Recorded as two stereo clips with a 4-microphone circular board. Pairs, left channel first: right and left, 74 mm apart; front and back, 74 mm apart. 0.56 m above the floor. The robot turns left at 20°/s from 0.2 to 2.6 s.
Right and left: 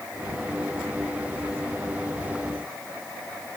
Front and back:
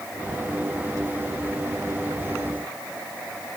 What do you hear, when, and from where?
Only background noise.